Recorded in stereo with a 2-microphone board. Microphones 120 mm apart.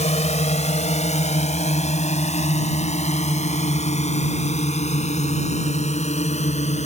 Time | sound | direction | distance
0.0 | a drone | 75° left (ahead or behind) | ?